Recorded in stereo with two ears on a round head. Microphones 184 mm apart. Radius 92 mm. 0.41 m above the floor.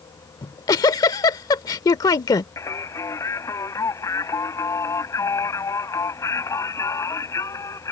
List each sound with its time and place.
0.4 s a giggle: 20° left (ahead or behind)
2.6 s singing: 15° left (ahead or behind)